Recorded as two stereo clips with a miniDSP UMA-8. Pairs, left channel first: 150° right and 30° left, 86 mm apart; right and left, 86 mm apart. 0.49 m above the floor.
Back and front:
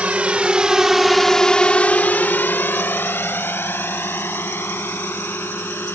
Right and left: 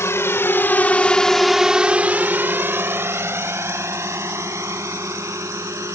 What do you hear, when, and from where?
0.0 s a drone: 40° right; by 6.0 s 145° left